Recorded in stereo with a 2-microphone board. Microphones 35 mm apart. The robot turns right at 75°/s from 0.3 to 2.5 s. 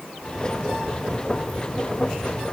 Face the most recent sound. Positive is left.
No sound to turn to.